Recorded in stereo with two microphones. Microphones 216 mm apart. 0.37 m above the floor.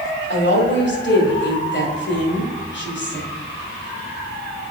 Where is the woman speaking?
55° left (ahead or behind), 1.8 m.